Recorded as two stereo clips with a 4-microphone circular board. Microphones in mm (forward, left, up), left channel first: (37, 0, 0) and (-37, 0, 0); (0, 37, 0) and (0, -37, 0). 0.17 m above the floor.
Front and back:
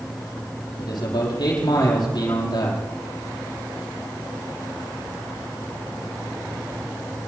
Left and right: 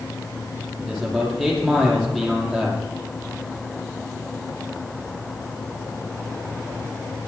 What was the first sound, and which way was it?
A man speaking, 5° right.